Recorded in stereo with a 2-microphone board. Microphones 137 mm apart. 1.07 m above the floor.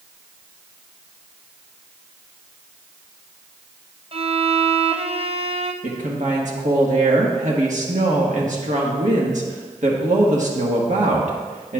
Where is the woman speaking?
65° right (ahead or behind), 1.4 m.